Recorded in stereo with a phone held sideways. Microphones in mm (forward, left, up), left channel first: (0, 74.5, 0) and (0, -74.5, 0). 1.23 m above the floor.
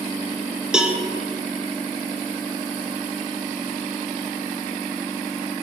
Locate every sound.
0.7 s a cowbell: 5° right (ahead or behind), 0.5 m